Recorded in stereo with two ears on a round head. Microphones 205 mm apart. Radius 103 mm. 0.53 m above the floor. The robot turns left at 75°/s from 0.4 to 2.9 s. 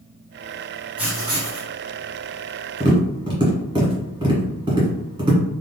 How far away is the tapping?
About 1.5 m.